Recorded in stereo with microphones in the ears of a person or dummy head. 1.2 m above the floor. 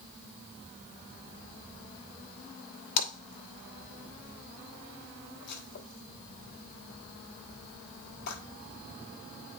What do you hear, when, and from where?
3.0 s a splash: 60° left (ahead or behind), 1.5 m